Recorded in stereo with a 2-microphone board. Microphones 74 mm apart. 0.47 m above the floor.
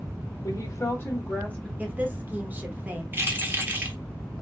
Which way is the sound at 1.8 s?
25° right (ahead or behind).